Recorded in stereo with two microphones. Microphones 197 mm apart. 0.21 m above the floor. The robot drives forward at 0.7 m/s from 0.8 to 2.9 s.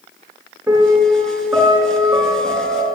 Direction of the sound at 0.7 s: 10° right (ahead or behind).